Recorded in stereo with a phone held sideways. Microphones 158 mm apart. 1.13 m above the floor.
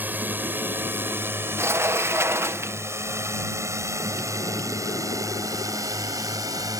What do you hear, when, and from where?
0.0 s a drone: 10° right (ahead or behind); by 6.8 s 25° right (ahead or behind)
1.6 s a sliding door: 15° right (ahead or behind)